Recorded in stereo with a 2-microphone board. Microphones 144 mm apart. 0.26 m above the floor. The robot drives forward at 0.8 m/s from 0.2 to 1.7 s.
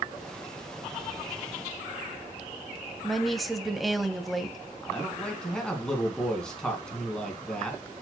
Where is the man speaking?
5° left (ahead or behind), 3 m.